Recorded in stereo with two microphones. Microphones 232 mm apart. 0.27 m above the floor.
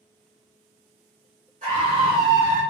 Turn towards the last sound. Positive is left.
turn(degrees=-10)  # may be behind; listen again after turning